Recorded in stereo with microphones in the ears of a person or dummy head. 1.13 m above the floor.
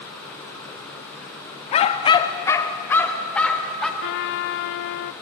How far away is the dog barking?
About 0.7 m.